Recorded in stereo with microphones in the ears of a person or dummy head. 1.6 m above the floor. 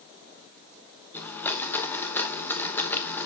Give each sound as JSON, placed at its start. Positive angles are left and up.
{"t": 1.1, "sound": "a blender", "side_deg": 10, "distance_m": 1.1}